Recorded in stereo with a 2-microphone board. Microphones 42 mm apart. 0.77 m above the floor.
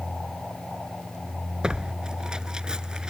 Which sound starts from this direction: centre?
Tearing paper, at 1.6 s.